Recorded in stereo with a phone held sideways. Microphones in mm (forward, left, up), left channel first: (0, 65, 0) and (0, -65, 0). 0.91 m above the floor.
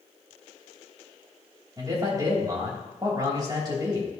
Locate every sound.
1.8 s a man speaking: 30° right (ahead or behind), 3 m